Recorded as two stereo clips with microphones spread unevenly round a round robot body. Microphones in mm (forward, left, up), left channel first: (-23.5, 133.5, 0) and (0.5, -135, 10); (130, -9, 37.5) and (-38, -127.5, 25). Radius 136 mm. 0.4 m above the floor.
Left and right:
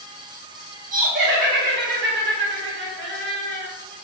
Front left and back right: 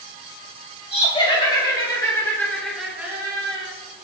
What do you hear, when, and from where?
0.9 s laughter: 25° right, 3 m; by 3.7 s 110° right, 1.6 m